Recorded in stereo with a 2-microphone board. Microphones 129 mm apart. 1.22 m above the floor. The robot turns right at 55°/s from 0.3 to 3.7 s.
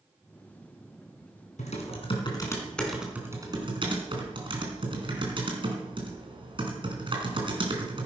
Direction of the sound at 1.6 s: 105° left.